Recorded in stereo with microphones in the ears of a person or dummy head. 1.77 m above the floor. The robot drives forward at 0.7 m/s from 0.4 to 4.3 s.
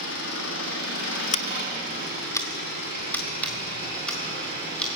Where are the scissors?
40° left (ahead or behind), 0.6 m; by 4.9 s 10° left (ahead or behind), 2.5 m.